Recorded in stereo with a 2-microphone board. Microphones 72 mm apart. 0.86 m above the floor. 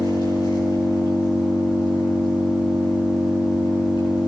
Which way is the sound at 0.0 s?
85° left.